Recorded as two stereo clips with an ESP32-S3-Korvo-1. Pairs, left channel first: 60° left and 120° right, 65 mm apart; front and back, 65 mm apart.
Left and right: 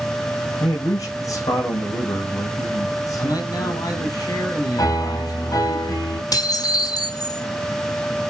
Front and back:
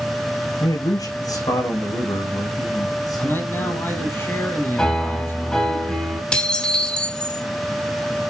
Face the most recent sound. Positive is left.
turn(degrees=75)